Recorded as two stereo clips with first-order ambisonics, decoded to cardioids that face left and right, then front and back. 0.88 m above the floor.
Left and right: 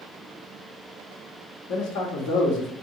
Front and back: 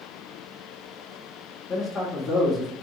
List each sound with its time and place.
1.7 s a man speaking: 85° left, 1.3 m